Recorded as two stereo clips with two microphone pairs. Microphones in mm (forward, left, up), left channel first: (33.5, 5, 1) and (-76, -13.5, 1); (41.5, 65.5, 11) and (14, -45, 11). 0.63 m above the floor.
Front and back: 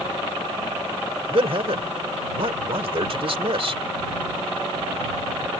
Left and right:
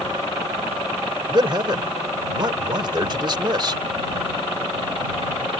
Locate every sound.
1.3 s a man speaking: 145° right